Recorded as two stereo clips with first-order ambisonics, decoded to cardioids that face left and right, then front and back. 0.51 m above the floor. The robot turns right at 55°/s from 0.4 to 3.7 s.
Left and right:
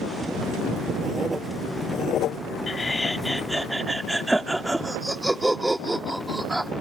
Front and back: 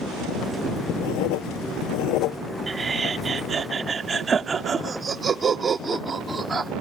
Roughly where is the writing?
Ahead right.